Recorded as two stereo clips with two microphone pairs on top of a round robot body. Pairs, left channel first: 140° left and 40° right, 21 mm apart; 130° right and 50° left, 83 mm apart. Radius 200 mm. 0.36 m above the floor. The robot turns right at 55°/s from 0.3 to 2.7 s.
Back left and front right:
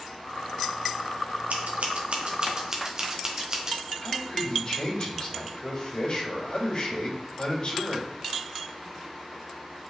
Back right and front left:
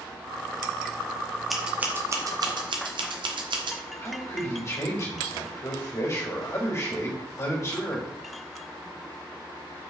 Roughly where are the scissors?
Ahead right.